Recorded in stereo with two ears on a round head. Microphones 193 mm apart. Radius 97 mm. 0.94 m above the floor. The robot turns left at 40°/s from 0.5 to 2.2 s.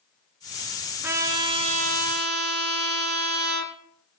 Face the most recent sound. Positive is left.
turn(degrees=-55)